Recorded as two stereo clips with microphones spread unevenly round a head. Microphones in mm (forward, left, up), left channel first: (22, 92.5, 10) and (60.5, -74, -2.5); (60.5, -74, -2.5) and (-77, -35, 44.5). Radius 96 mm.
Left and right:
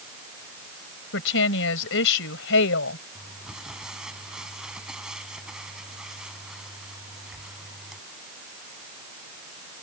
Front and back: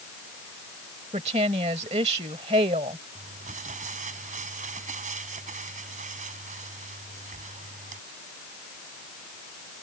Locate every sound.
1.1 s a woman speaking: 105° left
3.1 s crumpling: 165° right